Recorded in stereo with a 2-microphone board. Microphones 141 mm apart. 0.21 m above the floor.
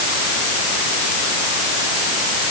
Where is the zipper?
No zipper in this recording.